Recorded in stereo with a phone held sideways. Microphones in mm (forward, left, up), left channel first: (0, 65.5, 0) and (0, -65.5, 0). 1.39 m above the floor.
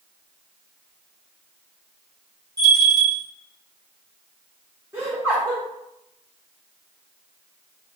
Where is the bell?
30° right (ahead or behind), 0.8 m.